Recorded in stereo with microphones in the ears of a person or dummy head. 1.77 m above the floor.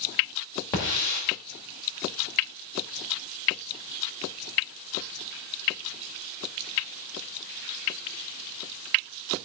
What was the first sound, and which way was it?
A hiss, 10° left (ahead or behind).